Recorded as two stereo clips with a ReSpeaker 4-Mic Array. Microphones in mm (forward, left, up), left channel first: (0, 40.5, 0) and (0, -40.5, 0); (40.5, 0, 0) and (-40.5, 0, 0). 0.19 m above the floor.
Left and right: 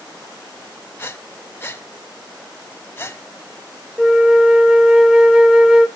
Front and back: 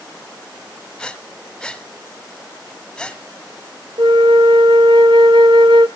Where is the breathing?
70° left, 1.1 m.